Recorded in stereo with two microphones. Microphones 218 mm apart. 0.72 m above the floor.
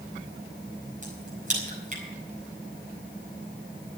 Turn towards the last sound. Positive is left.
turn(degrees=-35)  # may be behind; listen again after turning